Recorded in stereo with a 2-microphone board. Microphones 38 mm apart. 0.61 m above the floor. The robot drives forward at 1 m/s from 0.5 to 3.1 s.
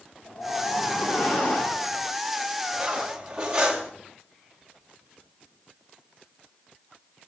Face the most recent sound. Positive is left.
turn(degrees=-20)  # may be behind; listen again after turning